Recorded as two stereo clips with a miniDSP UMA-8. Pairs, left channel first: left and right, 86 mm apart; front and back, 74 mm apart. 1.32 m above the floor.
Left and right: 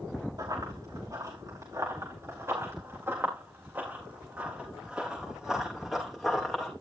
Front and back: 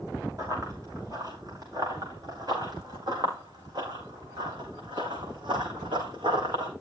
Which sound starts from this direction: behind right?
Running footsteps, at 0.4 s.